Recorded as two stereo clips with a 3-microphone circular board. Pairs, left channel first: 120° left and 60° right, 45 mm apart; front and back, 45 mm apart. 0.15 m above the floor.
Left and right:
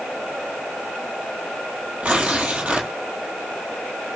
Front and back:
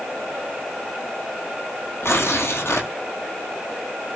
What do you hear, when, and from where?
2.0 s tearing paper: 5° right, 1.4 m